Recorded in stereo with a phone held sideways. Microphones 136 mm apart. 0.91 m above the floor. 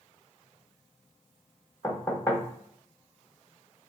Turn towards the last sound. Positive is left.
turn(degrees=25)  # may be behind; listen again after turning